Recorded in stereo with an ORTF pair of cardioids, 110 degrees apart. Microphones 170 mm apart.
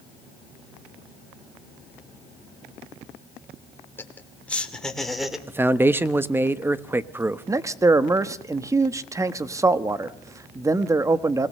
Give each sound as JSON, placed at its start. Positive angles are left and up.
{"t": 4.0, "sound": "laughter", "azimuth_deg": 15, "distance_m": 3.0}
{"t": 5.5, "sound": "a man speaking", "azimuth_deg": -15, "distance_m": 1.2}
{"t": 7.5, "sound": "a man speaking", "azimuth_deg": -20, "distance_m": 1.3}